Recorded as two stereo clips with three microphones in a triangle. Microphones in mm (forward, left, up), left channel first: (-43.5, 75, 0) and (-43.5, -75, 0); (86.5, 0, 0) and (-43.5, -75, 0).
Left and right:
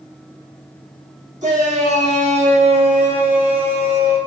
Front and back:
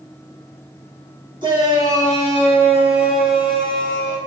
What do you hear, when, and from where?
1.4 s a shout: 100° right, 2.5 m; by 4.2 s 45° right, 2.5 m